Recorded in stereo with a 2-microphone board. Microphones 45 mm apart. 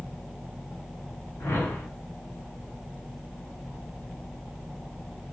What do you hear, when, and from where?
1.4 s a whoosh: 70° left (ahead or behind), 3.5 m